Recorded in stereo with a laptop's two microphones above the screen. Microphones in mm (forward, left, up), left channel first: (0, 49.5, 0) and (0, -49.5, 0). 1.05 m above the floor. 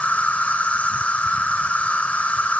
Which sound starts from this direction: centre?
An insect, at 0.0 s.